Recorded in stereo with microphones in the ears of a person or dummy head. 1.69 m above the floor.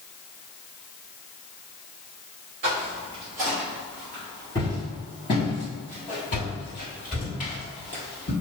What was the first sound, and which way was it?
Footsteps, 15° right (ahead or behind).